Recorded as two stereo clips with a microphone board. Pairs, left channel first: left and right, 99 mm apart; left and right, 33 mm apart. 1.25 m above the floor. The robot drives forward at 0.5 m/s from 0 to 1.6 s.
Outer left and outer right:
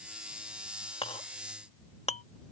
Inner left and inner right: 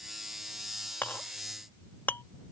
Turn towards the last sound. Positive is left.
turn(degrees=80)